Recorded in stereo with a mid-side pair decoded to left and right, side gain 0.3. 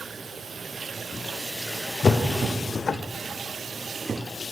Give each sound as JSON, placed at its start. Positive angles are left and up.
{"t": 2.0, "sound": "a whoosh", "azimuth_deg": 55, "distance_m": 0.7}